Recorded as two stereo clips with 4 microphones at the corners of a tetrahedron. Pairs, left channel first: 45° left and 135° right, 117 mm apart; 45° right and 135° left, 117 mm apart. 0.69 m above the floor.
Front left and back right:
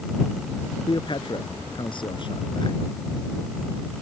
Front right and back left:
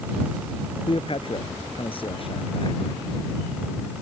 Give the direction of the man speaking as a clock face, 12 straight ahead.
12 o'clock.